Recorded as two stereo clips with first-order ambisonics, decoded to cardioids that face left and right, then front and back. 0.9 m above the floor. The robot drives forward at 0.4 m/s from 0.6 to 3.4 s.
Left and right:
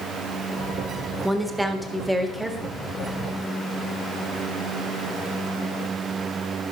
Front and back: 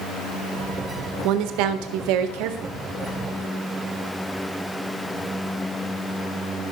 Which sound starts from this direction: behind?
A woman speaking, at 1.2 s.